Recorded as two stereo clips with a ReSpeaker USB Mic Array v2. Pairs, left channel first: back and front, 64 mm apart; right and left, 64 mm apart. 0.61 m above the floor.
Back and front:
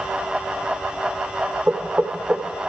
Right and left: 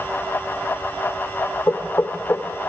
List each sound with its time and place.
1.7 s knocking: 55° right, 2.0 m